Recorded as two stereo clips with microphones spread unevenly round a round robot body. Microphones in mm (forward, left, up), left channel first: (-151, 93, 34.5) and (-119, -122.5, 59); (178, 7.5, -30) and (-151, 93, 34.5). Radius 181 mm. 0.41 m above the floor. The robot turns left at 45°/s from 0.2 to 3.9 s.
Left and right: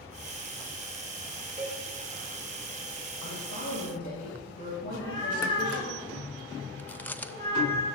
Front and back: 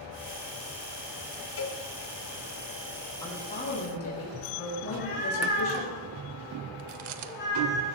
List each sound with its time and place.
1.6 s a cowbell: 10° right, 3.5 m; by 1.8 s 20° right, 3.5 m
3.2 s a woman speaking: 65° left, 10 m; by 5.9 s 35° left, 10 m
4.9 s a cat meowing: 45° left, 9.5 m
6.8 s chewing: 175° left, 1.0 m